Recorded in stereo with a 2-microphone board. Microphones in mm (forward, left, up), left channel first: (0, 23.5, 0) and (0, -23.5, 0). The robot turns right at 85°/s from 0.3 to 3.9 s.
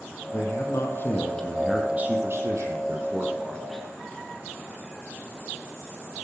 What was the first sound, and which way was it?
A man speaking, 70° left.